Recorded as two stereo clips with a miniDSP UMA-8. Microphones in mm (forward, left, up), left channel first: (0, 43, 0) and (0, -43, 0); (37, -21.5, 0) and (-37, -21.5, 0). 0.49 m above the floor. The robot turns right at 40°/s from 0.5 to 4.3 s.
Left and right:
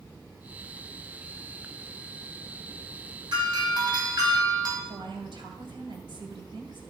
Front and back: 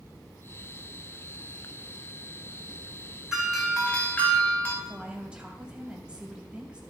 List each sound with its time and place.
3.3 s a doorbell: 100° right, 2.5 m; by 4.8 s 60° right, 2.5 m
4.8 s a woman speaking: 105° right, 2.5 m